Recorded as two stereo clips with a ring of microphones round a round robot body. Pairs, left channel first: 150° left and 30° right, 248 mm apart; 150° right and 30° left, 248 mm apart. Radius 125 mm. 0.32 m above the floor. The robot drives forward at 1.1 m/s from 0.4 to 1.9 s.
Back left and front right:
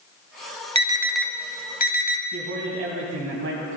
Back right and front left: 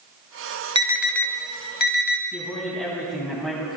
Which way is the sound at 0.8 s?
10° right.